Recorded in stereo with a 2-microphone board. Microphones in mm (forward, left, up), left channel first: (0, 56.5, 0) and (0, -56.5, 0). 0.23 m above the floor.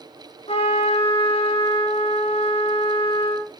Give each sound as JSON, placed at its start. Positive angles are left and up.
{"t": 0.5, "sound": "a trumpet", "side_deg": 65, "distance_m": 7.0}